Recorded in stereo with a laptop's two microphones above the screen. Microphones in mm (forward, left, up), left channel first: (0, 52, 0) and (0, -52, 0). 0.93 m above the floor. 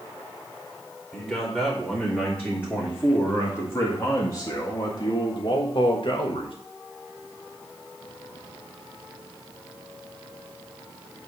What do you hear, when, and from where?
1.1 s a man speaking: 15° left (ahead or behind), 3.5 m; by 6.5 s 55° left (ahead or behind), 1.5 m